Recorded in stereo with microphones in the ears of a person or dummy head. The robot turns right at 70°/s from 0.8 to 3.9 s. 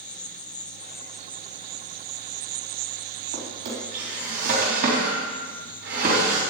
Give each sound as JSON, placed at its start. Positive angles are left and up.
{"t": 0.0, "sound": "an insect", "azimuth_deg": 155, "distance_m": 0.8}
{"t": 3.3, "sound": "a drawer", "side_deg": -80, "distance_m": 3.5}